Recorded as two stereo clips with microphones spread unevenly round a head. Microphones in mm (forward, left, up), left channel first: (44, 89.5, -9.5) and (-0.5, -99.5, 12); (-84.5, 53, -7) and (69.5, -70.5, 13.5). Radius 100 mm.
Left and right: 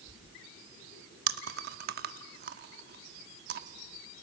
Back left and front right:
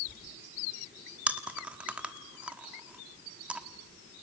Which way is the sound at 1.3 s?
115° right.